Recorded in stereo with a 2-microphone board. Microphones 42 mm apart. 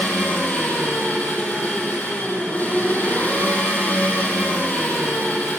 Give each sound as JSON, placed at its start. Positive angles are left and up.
{"t": 0.0, "sound": "an engine running", "side_deg": 40, "distance_m": 8.0}